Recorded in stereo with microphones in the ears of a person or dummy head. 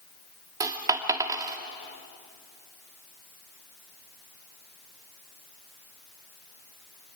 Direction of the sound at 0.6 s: 15° right (ahead or behind).